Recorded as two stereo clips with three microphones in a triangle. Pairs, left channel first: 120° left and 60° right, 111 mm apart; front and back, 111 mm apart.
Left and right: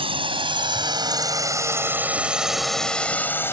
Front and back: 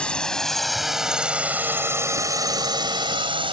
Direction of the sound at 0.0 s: 80° right.